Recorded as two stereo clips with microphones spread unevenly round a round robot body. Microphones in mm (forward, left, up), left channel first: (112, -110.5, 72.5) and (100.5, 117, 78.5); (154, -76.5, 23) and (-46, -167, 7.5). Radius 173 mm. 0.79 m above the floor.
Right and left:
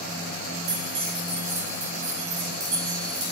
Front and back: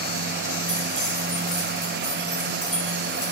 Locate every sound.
0.7 s keys jangling: 105° left, 3 m